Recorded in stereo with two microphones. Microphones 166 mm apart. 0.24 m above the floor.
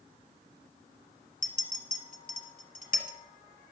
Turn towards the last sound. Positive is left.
turn(degrees=60)  # may be behind; listen again after turning